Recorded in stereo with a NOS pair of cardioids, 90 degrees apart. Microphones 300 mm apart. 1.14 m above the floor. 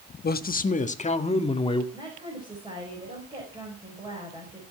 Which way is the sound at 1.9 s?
15° right.